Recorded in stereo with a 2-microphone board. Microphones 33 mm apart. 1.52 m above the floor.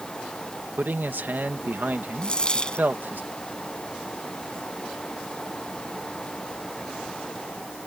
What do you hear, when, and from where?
0.8 s a man speaking: 80° right
2.2 s a dropped coin: 25° left (ahead or behind)